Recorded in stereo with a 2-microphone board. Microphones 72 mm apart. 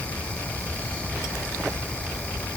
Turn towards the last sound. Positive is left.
No sound to turn to.